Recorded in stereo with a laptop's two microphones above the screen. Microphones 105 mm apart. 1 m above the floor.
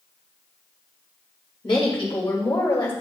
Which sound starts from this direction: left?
A woman speaking, at 1.6 s.